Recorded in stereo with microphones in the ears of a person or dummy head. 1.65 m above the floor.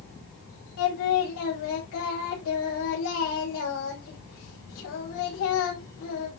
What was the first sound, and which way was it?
Singing, 75° left (ahead or behind).